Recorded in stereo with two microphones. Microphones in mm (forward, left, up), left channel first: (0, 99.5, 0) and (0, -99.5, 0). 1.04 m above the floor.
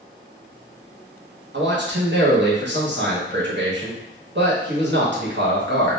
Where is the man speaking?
65° right (ahead or behind), 0.9 m.